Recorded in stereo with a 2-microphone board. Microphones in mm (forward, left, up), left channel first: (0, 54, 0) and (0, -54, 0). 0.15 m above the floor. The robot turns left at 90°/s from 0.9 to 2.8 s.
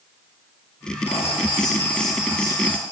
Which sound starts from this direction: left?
Writing, at 1.1 s.